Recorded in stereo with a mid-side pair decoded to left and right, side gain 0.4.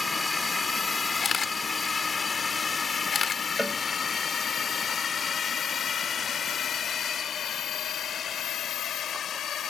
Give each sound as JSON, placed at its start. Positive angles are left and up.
{"t": 0.0, "sound": "a drone", "azimuth_deg": 25}
{"t": 1.2, "sound": "a camera shutter", "azimuth_deg": 50}
{"t": 3.6, "sound": "a cowbell", "azimuth_deg": -5}